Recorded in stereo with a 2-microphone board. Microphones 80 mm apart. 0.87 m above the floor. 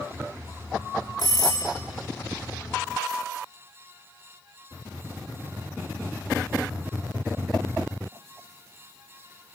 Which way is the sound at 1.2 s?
50° left (ahead or behind).